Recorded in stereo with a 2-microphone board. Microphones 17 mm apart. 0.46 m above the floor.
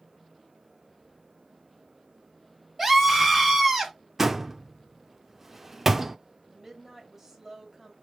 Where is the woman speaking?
25° right (ahead or behind), 2.5 m.